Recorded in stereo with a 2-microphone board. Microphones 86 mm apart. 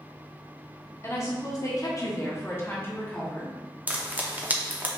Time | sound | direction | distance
1.0 | a woman speaking | 35° left (ahead or behind) | 0.9 m
3.9 | frying | 20° right (ahead or behind) | 0.5 m